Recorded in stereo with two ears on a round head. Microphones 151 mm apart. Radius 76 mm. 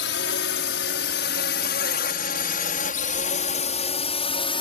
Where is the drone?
75° left (ahead or behind); by 4.6 s 30° left (ahead or behind).